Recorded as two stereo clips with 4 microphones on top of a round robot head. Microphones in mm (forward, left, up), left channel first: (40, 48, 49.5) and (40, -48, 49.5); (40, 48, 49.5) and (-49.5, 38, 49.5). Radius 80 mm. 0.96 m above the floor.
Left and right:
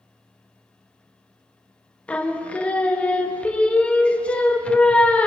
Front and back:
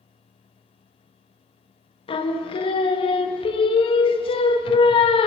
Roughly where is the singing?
Ahead.